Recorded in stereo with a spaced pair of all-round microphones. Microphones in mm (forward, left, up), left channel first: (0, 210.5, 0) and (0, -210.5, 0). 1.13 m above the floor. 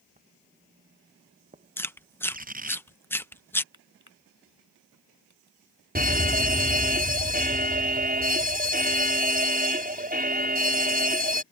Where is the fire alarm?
20° right (ahead or behind).